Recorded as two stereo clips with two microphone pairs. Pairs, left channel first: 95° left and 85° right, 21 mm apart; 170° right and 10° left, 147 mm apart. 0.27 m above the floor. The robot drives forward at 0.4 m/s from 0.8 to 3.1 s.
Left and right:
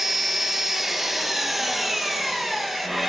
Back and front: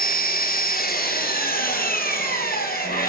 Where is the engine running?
165° right, 1.4 m; by 3.1 s 170° right, 2.5 m.